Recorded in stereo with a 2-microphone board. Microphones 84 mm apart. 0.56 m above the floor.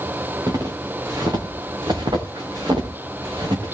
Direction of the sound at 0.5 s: 45° right (ahead or behind).